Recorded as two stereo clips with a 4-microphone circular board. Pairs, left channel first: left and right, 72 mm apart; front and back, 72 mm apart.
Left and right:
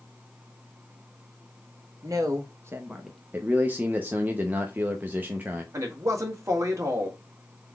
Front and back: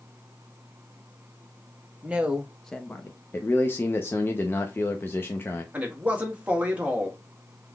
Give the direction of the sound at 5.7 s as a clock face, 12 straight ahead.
4 o'clock.